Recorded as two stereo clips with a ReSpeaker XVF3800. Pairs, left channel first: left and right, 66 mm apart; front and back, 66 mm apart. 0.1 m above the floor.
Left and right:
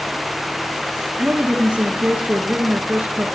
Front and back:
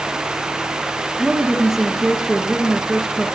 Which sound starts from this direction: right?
A woman speaking, at 1.2 s.